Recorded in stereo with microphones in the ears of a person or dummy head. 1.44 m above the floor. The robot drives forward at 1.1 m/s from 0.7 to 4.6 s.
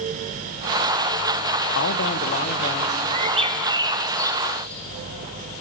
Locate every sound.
1.8 s a man speaking: 75° left (ahead or behind), 1.2 m; by 3.0 s 35° left (ahead or behind), 2.0 m
3.1 s a bird: 40° right (ahead or behind), 0.9 m; by 4.8 s 15° right (ahead or behind), 2 m